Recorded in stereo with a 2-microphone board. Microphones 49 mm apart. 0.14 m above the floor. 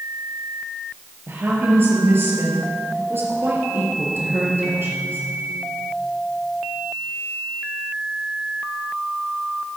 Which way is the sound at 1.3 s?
45° right (ahead or behind).